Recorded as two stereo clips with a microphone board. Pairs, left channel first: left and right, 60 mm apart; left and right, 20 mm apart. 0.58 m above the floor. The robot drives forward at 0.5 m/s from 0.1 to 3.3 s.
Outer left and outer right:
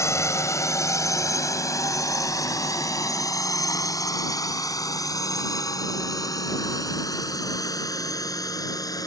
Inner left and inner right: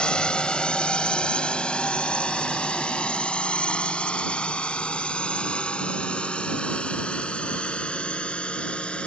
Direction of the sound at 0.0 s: 55° left (ahead or behind).